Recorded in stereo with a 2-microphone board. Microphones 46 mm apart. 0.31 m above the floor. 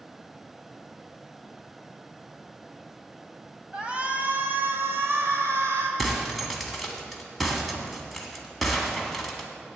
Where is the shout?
20° right (ahead or behind), 1.3 m; by 5.9 s 70° right (ahead or behind), 2.5 m.